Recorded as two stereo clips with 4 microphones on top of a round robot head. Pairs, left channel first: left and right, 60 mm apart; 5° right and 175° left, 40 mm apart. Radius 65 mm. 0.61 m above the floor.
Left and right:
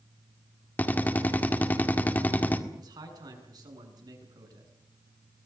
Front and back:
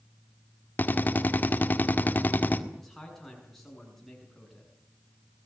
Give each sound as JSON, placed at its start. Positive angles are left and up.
{"t": 0.8, "sound": "a drill", "azimuth_deg": 30, "distance_m": 1.9}
{"t": 2.7, "sound": "a man speaking", "azimuth_deg": -90, "distance_m": 7.0}